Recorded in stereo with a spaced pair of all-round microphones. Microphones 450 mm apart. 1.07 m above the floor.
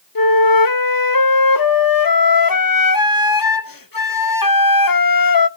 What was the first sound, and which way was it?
A flute, 50° left (ahead or behind).